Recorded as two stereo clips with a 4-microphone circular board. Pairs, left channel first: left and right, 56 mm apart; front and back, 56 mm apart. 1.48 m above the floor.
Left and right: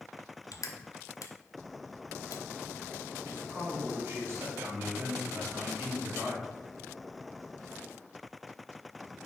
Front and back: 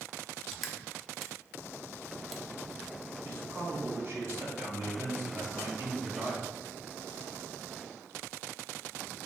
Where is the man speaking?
135° right, 2.5 m.